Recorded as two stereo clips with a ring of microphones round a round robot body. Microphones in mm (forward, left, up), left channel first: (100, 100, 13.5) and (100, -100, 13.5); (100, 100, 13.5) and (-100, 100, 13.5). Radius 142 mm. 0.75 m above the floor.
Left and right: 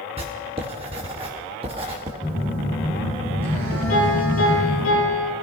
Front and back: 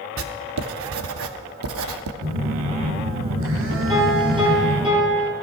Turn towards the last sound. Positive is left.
turn(degrees=115)